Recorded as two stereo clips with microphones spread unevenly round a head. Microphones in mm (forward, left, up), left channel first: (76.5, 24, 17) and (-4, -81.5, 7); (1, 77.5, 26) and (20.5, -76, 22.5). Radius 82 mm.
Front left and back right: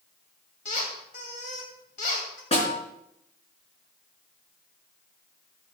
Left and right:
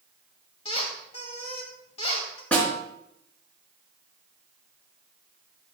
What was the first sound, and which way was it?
A squeak, 50° left.